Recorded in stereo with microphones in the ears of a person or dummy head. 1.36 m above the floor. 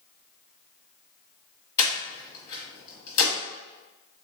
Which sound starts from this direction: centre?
Breathing, at 1.8 s.